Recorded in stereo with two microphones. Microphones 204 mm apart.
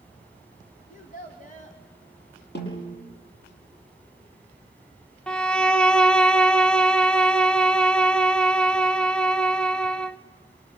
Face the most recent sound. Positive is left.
turn(degrees=5)  # may be behind; listen again after turning